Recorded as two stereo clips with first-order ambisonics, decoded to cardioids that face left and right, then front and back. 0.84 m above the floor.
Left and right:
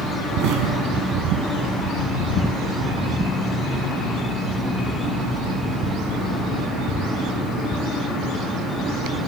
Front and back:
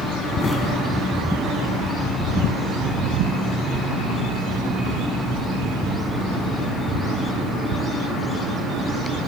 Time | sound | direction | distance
0.4 | an explosion | 70° right | 1.4 m